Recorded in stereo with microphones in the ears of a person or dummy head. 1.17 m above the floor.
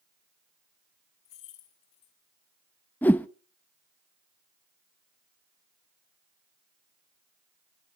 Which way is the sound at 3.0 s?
10° left (ahead or behind).